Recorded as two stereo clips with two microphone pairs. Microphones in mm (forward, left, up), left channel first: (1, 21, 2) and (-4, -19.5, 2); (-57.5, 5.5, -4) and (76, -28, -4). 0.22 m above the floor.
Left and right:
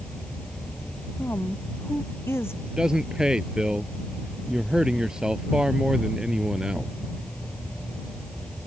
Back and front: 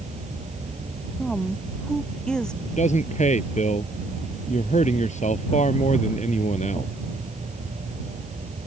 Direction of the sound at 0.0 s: 20° left.